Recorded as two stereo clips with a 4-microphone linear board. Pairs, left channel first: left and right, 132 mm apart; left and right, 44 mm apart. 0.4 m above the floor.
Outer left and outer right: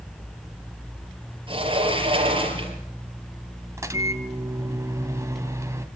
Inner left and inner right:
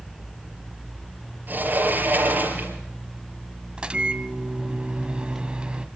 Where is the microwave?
20° right (ahead or behind), 1.9 m.